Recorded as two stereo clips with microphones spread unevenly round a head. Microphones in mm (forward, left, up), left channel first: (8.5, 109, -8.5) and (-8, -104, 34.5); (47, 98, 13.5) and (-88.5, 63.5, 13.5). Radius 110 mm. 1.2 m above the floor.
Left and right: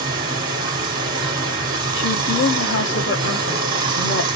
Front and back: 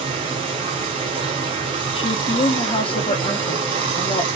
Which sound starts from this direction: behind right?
Running water, at 0.0 s.